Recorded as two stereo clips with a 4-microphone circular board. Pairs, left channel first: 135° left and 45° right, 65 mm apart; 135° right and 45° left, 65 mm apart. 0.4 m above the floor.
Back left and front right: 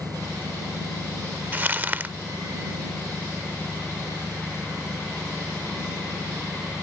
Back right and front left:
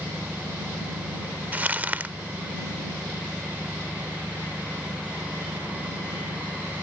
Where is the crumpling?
Straight ahead.